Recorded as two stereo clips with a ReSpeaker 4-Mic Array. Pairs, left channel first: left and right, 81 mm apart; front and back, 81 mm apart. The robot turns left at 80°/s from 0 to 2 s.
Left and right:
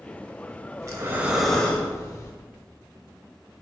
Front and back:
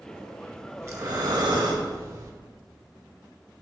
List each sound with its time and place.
0.8 s breathing: 130° right, 0.6 m; by 2.3 s 135° left, 0.6 m